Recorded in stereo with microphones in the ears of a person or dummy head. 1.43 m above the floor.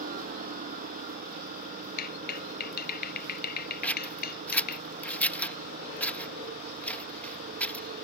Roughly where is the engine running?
Right.